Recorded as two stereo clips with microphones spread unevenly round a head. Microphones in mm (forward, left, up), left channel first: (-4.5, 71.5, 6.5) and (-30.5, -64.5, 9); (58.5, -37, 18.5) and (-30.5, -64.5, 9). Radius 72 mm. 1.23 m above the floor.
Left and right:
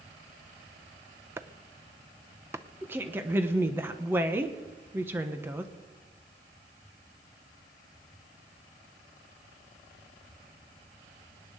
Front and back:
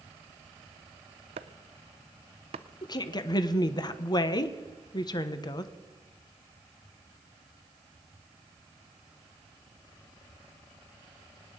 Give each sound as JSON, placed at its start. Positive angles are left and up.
{"t": 1.4, "sound": "chopping", "azimuth_deg": -175, "distance_m": 0.6}
{"t": 2.8, "sound": "a woman speaking", "azimuth_deg": -25, "distance_m": 1.1}